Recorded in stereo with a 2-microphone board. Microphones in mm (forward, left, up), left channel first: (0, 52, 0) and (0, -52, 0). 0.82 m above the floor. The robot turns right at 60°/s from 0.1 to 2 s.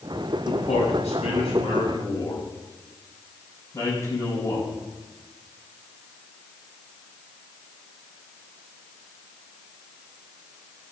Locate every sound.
0.5 s a man speaking: 55° left (ahead or behind), 5.5 m; by 4.7 s 30° left (ahead or behind), 5.5 m